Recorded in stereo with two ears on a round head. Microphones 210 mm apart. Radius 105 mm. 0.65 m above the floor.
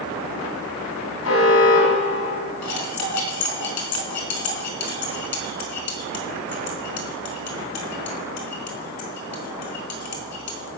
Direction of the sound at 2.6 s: 90° left.